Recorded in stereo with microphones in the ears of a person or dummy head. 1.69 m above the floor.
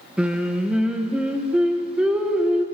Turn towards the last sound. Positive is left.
turn(degrees=-10)  # may be behind; listen again after turning